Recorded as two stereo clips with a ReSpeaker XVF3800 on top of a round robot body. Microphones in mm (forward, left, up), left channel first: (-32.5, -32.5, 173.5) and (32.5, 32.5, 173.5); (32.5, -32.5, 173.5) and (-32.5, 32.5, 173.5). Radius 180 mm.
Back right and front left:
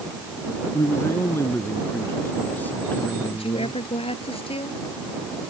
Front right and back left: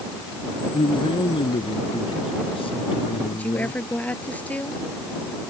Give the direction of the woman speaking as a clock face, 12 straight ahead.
4 o'clock.